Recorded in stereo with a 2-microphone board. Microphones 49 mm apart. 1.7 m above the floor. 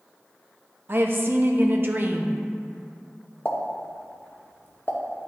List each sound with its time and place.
0.9 s a woman speaking: 45° right (ahead or behind), 0.8 m
3.5 s a pop: 45° left (ahead or behind), 0.8 m